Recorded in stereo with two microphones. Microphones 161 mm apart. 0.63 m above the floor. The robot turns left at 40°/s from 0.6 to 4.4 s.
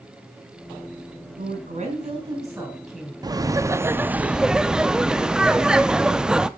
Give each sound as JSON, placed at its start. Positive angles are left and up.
{"t": 1.4, "sound": "a woman speaking", "azimuth_deg": -115, "distance_m": 3.5}
{"t": 3.2, "sound": "laughter", "side_deg": -25, "distance_m": 0.6}